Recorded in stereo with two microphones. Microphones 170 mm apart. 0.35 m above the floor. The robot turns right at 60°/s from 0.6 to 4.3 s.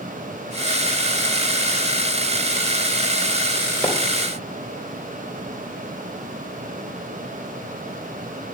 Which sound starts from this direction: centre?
A splash, at 3.8 s.